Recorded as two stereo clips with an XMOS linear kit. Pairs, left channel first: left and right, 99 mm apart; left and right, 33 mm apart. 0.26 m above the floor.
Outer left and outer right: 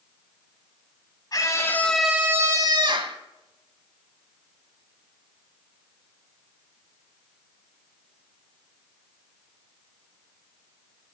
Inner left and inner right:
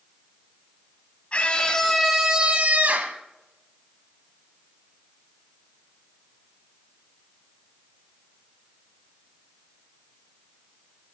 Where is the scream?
40° left (ahead or behind), 1.5 m; by 3.2 s 60° right (ahead or behind), 1.9 m.